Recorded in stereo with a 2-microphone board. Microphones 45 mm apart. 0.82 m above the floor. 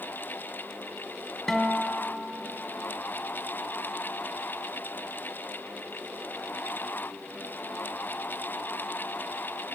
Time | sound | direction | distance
1.5 | a guitar | 5° left (ahead or behind) | 2 m